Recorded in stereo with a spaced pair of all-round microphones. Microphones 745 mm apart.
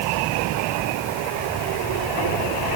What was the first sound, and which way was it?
Only background noise.